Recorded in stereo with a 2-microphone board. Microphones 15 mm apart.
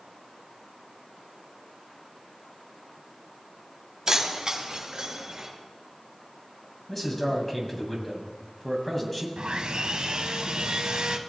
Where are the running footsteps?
I don't hear running footsteps.